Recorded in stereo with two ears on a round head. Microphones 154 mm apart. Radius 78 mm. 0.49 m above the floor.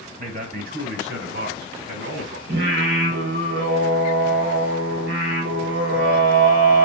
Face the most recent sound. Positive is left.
turn(degrees=-70)  # may be behind; listen again after turning